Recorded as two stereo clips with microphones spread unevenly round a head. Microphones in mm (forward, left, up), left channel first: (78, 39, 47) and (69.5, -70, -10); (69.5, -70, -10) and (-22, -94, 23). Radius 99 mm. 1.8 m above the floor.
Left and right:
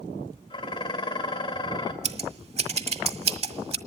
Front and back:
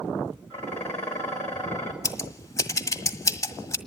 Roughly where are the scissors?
Ahead right.